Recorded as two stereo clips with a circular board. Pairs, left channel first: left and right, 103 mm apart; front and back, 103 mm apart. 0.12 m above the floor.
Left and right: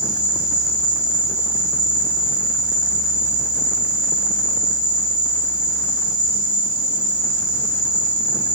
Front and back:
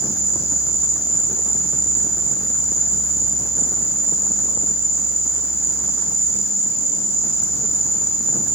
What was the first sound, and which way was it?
An insect, 10° right.